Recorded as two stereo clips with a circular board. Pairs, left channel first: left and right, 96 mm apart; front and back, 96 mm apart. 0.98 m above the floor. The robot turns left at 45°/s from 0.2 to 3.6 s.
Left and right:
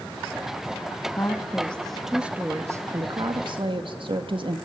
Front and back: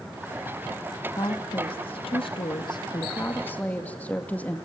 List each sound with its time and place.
1.2 s a woman speaking: 35° left, 1.8 m; by 4.6 s 75° right, 1.8 m